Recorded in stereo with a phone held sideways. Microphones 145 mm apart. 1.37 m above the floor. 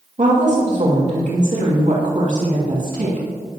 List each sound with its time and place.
0.2 s a woman speaking: 60° right (ahead or behind), 2.5 m